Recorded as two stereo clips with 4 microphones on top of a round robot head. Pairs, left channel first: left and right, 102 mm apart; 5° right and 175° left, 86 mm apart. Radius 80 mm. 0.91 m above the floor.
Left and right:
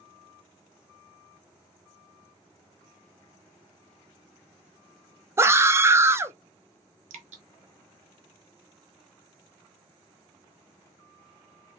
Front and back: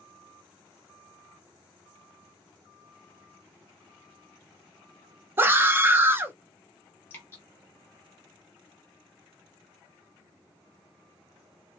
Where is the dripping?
75° right, 0.7 m.